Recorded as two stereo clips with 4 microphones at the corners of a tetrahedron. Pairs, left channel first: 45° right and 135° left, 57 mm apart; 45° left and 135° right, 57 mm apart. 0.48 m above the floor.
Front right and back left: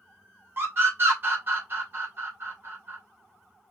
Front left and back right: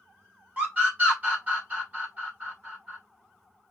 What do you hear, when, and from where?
0.6 s a scream: 170° left, 2 m